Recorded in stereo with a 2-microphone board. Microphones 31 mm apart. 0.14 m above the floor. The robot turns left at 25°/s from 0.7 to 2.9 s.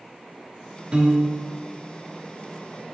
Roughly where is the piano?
Right.